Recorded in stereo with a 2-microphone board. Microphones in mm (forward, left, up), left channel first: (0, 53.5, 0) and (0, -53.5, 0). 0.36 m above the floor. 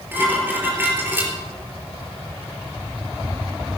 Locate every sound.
0.1 s dishes clattering: 20° right (ahead or behind), 4.5 m